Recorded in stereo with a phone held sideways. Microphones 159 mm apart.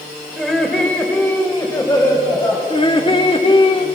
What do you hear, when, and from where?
0.4 s laughter: centre (ahead or behind), 3 m; by 2.6 s 30° left (ahead or behind), 5 m
2.7 s laughter: 35° left (ahead or behind), 2.5 m